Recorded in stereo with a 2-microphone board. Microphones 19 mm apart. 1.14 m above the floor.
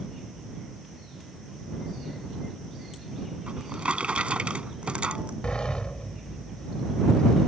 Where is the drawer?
75° right (ahead or behind).